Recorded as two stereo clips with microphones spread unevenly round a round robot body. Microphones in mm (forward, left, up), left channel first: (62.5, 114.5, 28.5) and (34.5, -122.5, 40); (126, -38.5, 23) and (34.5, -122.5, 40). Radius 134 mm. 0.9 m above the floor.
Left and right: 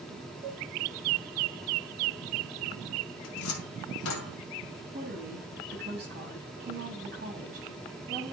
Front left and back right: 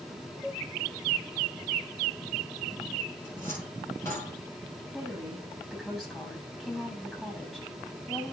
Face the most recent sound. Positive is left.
turn(degrees=-45)